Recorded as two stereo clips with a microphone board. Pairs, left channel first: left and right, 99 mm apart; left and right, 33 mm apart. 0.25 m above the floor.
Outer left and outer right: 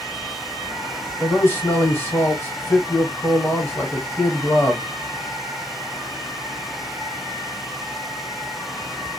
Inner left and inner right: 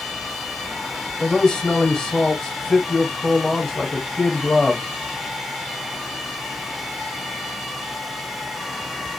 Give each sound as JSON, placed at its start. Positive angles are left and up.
{"t": 1.2, "sound": "a man speaking", "side_deg": 25, "distance_m": 1.0}